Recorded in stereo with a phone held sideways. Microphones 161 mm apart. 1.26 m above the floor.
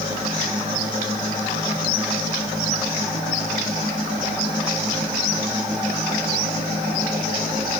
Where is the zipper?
No zipper in this recording.